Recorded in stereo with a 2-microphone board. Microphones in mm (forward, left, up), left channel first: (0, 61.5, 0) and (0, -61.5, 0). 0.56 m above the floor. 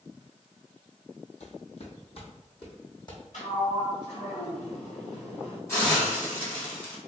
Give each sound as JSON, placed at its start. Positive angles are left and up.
{"t": 1.4, "sound": "footsteps", "side_deg": 65, "distance_m": 1.1}
{"t": 3.3, "sound": "a sliding door", "side_deg": 75, "distance_m": 1.6}
{"t": 5.7, "sound": "a hiss", "side_deg": 20, "distance_m": 1.9}